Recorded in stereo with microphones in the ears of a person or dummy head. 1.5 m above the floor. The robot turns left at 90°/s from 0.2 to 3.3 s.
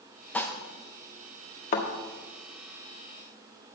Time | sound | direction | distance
0.3 | dishes clattering | 10° left (ahead or behind) | 0.8 m
1.7 | a thud | 45° left (ahead or behind) | 1.8 m